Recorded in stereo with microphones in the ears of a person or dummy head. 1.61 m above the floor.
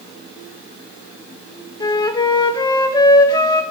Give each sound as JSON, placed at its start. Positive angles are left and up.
{"t": 1.8, "sound": "a flute", "side_deg": 20, "distance_m": 0.6}